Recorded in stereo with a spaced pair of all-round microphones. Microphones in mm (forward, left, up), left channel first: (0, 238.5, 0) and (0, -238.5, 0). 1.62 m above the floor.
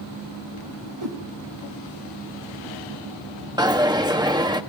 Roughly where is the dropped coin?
Centre.